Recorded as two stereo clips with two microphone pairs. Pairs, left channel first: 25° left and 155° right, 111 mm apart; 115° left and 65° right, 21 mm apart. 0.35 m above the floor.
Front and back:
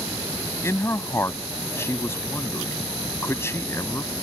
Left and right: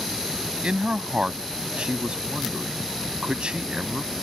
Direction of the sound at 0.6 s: 40° right.